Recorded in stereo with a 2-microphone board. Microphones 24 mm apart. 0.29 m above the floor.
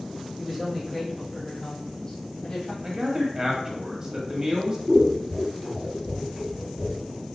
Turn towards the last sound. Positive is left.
turn(degrees=-25)  # may be behind; listen again after turning